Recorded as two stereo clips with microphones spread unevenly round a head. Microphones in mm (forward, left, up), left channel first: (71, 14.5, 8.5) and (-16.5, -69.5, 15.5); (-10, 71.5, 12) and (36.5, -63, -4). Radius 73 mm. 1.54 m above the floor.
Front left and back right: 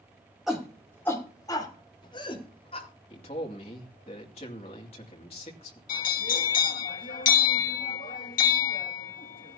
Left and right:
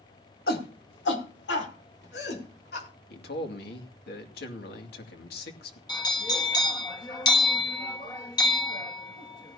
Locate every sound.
0.5 s a shout: 135° left, 2.5 m; by 2.9 s 95° left, 5 m
3.1 s a man speaking: 95° left, 2.5 m
5.9 s a bell: 50° left, 1.5 m